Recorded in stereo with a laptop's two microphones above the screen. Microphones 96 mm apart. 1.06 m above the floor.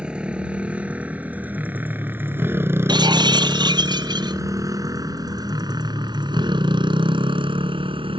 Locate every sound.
0.0 s a motorcycle: 10° right (ahead or behind); by 8.2 s 70° right (ahead or behind)
2.9 s breaking glass: 50° right (ahead or behind)